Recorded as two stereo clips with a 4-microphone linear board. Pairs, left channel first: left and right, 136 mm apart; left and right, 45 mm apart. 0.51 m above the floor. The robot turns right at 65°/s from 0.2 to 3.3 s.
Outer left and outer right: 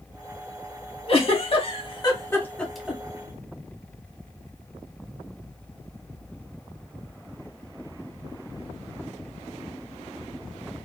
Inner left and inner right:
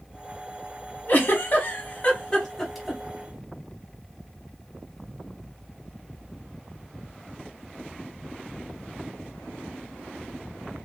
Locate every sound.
1.1 s a giggle: 45° left (ahead or behind), 0.9 m; by 3.0 s 10° right (ahead or behind), 0.9 m